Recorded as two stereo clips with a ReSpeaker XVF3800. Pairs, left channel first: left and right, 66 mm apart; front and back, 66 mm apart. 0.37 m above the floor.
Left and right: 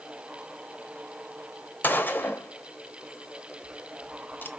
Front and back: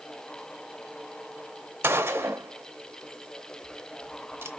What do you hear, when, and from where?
1.8 s a gunshot: 140° left, 0.5 m